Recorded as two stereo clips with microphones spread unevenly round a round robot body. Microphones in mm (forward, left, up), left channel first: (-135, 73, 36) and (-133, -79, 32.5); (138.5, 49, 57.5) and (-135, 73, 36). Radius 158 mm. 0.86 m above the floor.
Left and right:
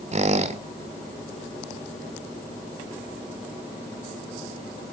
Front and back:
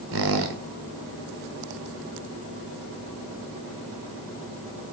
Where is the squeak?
135° right, 1.5 m.